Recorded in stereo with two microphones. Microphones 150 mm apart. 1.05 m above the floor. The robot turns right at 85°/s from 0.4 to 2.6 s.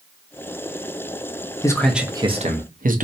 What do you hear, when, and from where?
1.6 s a man speaking: 155° left, 0.6 m; by 3.0 s 120° right, 0.6 m